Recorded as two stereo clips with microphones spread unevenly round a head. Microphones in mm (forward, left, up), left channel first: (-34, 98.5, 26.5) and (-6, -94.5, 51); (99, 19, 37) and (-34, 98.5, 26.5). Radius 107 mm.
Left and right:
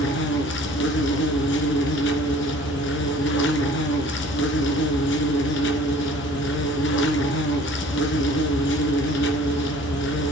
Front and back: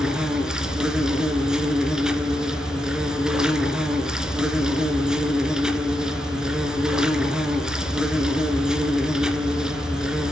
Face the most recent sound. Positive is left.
turn(degrees=60)